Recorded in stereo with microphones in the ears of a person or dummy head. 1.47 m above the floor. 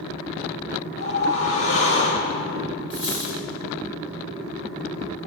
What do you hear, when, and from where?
1.0 s a whoosh: 65° left (ahead or behind), 2.5 m
2.9 s a dropped coin: 30° left (ahead or behind), 5 m